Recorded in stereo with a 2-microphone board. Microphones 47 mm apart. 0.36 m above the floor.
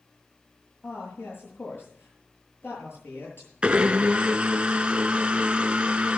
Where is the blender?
25° right (ahead or behind), 0.7 m.